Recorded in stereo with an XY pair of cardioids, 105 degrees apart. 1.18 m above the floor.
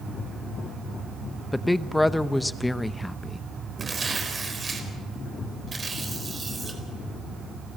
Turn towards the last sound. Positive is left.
turn(degrees=-30)